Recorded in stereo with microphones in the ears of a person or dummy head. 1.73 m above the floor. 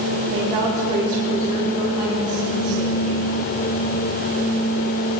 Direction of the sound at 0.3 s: 40° right (ahead or behind).